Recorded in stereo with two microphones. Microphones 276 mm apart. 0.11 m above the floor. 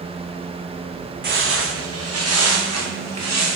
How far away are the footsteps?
About 0.5 m.